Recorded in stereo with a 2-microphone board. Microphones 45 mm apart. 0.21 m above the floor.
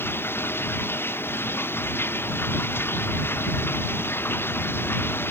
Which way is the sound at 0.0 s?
55° left (ahead or behind).